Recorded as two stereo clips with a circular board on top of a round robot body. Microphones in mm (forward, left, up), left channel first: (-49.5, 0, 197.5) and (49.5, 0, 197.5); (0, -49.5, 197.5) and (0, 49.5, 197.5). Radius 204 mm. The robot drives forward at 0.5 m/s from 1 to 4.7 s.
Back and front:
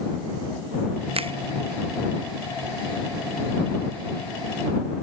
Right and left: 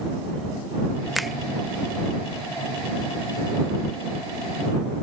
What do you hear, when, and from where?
1.1 s a finger snap: straight ahead